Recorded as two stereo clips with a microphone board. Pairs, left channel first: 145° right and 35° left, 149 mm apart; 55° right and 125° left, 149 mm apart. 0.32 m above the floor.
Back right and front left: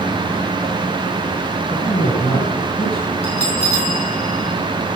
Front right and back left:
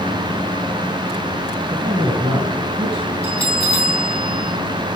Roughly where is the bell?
Right.